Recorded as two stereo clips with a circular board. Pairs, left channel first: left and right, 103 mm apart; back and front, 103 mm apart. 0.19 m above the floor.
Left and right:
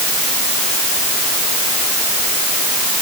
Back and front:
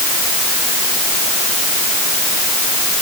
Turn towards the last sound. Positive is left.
No sound to turn to.